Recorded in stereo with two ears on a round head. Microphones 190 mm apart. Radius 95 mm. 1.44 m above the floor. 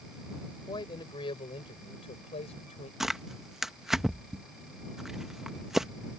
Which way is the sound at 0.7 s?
20° left (ahead or behind).